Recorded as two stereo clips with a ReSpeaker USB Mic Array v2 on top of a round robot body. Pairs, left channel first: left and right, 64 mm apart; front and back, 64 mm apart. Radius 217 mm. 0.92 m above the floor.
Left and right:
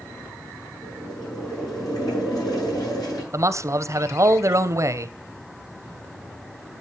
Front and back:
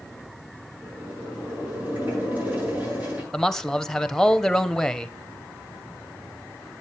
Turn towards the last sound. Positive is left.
turn(degrees=-85)